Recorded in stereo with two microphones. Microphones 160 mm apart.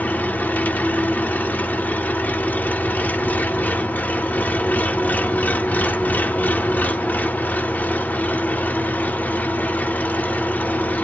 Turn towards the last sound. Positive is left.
turn(degrees=10)  # may be behind; listen again after turning